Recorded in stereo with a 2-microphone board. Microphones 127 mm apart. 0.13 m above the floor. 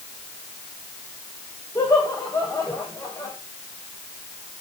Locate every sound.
1.8 s laughter: 20° left (ahead or behind), 7.5 m